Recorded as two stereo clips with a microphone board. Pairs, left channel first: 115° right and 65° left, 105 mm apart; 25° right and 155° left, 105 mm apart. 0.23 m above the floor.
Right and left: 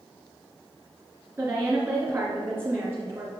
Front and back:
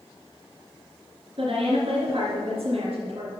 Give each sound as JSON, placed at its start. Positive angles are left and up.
{"t": 1.4, "sound": "a woman speaking", "azimuth_deg": 135, "distance_m": 2.5}